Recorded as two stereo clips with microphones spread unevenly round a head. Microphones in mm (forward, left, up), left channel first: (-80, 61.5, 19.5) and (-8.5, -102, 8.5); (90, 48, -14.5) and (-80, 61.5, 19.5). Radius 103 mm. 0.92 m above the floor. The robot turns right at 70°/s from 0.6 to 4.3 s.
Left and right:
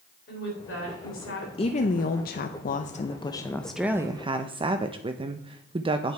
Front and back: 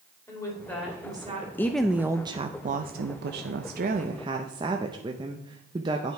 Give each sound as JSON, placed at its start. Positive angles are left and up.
{"t": 0.3, "sound": "a woman speaking", "azimuth_deg": 70, "distance_m": 3.5}
{"t": 1.6, "sound": "a woman speaking", "azimuth_deg": 55, "distance_m": 0.6}